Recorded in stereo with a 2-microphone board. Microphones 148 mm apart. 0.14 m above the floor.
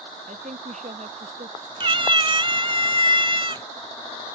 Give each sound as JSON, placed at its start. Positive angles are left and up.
{"t": 0.3, "sound": "a woman speaking", "side_deg": -55}
{"t": 1.8, "sound": "a cat meowing", "side_deg": -35}